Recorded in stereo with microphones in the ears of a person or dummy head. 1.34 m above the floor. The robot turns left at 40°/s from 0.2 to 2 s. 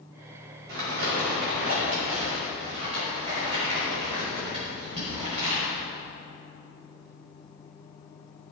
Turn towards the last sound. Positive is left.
turn(degrees=-140)